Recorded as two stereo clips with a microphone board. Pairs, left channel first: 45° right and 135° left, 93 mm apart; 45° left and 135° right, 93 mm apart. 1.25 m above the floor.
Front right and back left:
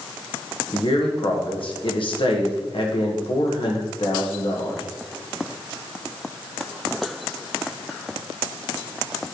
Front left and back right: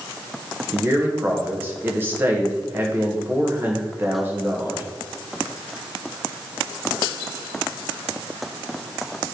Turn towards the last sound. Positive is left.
turn(degrees=-65)